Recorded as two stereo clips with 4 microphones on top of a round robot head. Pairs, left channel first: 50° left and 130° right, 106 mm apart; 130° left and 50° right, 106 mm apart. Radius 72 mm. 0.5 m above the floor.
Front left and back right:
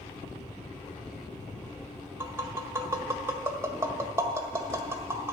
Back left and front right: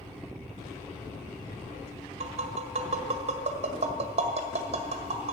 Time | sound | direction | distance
2.2 | tapping | 65° right | 1.7 m